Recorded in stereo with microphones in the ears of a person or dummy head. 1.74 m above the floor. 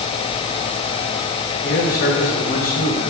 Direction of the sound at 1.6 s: 40° left (ahead or behind).